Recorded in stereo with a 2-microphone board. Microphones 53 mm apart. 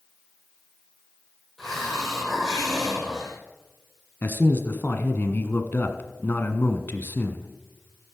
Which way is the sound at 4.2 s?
40° left (ahead or behind).